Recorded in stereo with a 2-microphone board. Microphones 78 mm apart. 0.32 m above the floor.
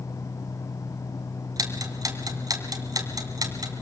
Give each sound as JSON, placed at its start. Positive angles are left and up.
{"t": 1.6, "sound": "ticking", "side_deg": -50, "distance_m": 2.5}